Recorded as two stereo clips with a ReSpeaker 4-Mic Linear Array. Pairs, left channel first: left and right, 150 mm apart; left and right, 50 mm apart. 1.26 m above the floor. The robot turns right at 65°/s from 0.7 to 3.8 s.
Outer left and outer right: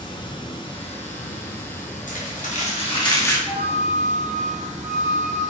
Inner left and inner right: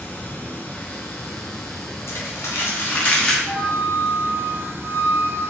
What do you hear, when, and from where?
0.0 s running water: 35° left, 0.8 m; by 5.5 s 125° right, 0.8 m
2.1 s crumpling: 80° left, 0.9 m; by 3.4 s 165° left, 0.9 m
3.5 s a flute: 50° left (ahead or behind), 1.2 m; by 5.4 s 70° left (ahead or behind), 1.2 m